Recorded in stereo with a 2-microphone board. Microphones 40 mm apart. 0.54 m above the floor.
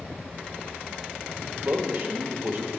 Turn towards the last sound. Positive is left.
turn(degrees=-50)  # may be behind; listen again after turning